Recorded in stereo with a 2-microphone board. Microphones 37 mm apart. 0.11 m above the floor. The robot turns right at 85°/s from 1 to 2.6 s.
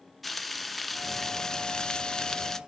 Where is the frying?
5° left (ahead or behind), 0.5 m; by 2.6 s 10° left (ahead or behind), 0.5 m.